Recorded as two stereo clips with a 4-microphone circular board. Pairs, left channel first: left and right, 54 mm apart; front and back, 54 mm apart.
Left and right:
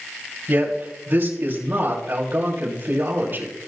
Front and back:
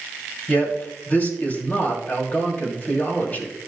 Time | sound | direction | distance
0.5 | a man speaking | 50° right | 3 m